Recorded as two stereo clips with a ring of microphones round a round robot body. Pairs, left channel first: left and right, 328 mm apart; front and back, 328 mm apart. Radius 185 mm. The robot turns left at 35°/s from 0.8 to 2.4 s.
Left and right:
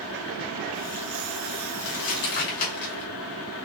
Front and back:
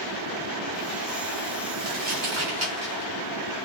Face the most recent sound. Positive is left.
turn(degrees=110)